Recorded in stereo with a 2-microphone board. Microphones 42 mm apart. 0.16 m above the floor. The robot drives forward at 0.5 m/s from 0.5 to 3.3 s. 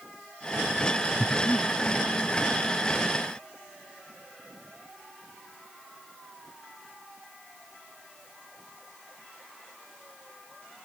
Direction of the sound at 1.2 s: 40° left (ahead or behind).